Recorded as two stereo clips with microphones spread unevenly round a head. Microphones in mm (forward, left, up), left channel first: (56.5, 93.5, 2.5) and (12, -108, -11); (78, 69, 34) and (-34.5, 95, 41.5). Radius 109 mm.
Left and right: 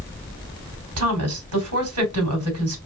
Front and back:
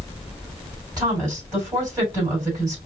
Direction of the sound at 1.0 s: 120° right.